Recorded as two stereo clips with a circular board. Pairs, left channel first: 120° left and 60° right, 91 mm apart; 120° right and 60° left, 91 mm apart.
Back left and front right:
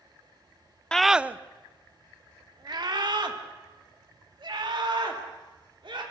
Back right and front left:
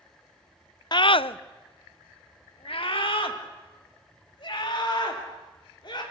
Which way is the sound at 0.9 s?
160° right.